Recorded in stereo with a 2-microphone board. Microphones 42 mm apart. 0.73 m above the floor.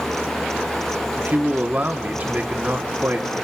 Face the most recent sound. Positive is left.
turn(degrees=-40)  # may be behind; listen again after turning